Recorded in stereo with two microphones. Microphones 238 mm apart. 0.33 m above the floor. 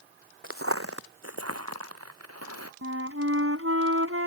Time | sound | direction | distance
0.4 | footsteps | 60° right (ahead or behind) | ?
2.8 | a flute | 65° right (ahead or behind) | ?